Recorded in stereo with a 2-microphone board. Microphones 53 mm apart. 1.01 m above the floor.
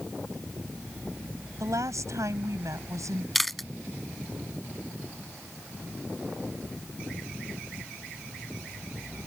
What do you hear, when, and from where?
1.6 s a woman speaking: 85° right; by 3.2 s 80° right
3.4 s chewing: centre (ahead or behind)